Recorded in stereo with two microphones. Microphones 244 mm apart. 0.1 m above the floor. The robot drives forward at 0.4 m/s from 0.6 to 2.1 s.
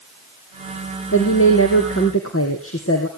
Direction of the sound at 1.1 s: 60° left (ahead or behind).